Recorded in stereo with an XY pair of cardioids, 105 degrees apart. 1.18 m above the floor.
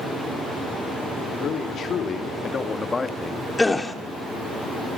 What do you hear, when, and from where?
1.4 s a man speaking: 65° left, 2.5 m; by 3.5 s 15° left, 1.6 m
3.6 s a gasp: 15° left, 2 m